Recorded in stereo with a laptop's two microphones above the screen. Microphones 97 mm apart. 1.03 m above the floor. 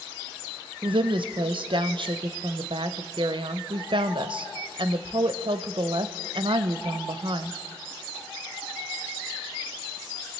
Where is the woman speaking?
60° right (ahead or behind), 0.5 m.